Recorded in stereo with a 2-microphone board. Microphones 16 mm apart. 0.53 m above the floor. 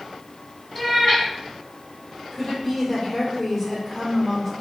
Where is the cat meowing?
30° left (ahead or behind), 1.4 m.